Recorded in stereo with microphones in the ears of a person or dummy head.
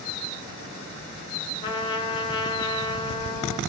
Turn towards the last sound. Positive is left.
turn(degrees=20)  # may be behind; listen again after turning